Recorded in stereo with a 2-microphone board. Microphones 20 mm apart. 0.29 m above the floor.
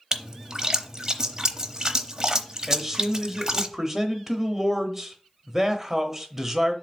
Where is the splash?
30° right (ahead or behind), 0.7 m.